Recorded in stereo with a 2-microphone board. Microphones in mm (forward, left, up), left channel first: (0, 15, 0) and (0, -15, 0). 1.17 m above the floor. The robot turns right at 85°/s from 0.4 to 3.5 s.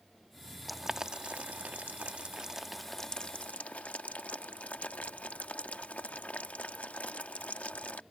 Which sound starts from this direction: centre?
Boiling, at 0.7 s.